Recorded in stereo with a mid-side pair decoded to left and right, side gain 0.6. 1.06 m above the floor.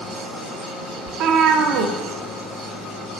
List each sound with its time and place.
1.1 s a cat meowing: 60° right, 1.1 m